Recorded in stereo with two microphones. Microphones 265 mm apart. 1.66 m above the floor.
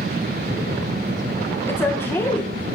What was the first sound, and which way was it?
A woman speaking, 10° left (ahead or behind).